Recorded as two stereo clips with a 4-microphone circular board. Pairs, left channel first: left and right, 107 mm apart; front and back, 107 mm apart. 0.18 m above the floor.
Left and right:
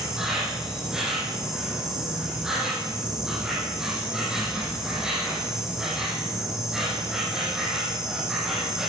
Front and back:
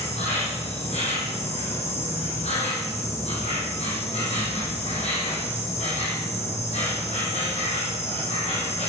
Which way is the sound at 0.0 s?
5° right.